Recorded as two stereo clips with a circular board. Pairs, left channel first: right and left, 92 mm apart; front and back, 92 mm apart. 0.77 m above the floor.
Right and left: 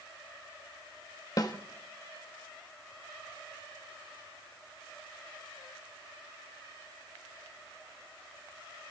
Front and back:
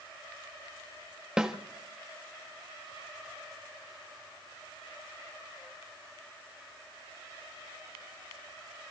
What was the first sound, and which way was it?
A snare drum, 100° right.